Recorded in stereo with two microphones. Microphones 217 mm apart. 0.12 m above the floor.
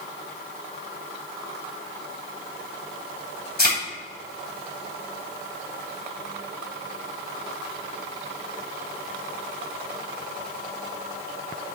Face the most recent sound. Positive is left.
turn(degrees=45)  # may be behind; listen again after turning